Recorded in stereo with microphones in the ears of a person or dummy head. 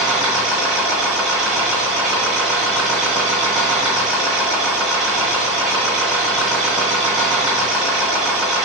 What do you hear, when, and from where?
0.0 s a machine running: 5° right (ahead or behind), 1.2 m